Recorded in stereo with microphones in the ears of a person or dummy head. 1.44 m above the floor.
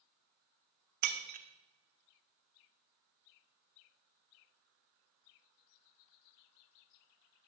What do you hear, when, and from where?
1.0 s breaking glass: 50° right (ahead or behind), 2 m